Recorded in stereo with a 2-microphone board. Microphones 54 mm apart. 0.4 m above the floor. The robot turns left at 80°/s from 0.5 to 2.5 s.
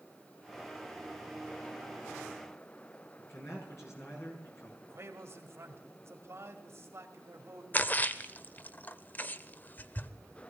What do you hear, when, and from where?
3.2 s a man speaking: 60° left (ahead or behind), 6 m
4.8 s a man speaking: 55° right (ahead or behind), 2 m
7.7 s a splash: 35° left (ahead or behind), 0.6 m